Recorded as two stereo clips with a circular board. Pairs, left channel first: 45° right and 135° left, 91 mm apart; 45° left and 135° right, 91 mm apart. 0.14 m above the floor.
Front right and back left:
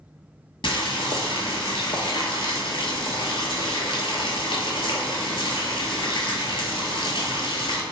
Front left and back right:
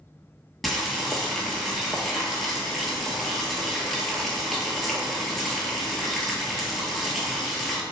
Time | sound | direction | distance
0.6 | boiling | 45° right | 0.6 m